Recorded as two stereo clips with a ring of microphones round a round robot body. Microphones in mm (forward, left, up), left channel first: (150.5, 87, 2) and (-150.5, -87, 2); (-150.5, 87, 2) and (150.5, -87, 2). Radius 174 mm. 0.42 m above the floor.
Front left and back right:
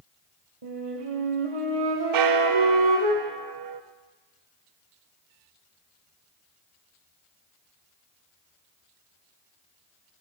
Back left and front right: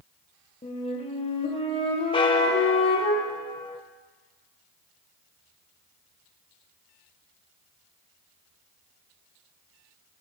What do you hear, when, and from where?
0.6 s a flute: 135° right, 3 m
2.1 s a bell: 135° right, 0.7 m